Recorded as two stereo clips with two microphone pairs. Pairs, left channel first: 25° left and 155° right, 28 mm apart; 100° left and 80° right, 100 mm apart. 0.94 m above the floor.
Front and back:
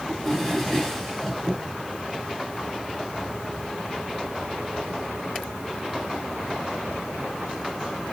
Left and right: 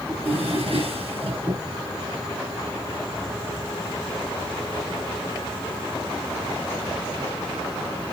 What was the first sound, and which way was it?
A drawer, 60° right.